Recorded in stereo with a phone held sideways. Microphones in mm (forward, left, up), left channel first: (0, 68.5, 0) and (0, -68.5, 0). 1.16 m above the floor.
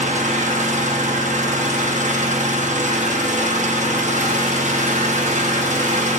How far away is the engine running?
About 0.8 m.